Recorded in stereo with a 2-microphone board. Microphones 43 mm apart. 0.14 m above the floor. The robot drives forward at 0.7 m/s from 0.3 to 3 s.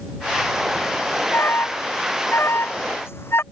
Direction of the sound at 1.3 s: 65° left (ahead or behind).